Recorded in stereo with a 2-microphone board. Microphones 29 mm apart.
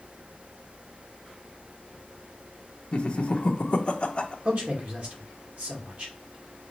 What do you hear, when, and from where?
2.9 s laughter: 40° left (ahead or behind), 0.8 m
4.5 s a man speaking: 60° right (ahead or behind), 2 m